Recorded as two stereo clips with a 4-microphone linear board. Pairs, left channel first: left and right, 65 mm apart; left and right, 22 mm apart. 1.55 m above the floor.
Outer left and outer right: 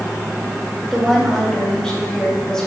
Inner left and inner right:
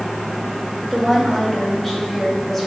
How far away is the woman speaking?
About 2.5 m.